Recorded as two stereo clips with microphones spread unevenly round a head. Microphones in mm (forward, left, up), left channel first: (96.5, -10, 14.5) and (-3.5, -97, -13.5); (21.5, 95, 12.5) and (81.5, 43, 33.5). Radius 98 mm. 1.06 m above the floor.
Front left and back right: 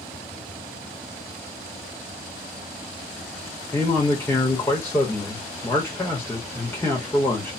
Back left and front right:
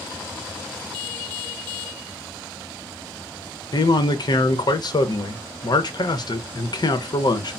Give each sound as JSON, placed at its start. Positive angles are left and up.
{"t": 3.7, "sound": "a man speaking", "azimuth_deg": 120, "distance_m": 0.8}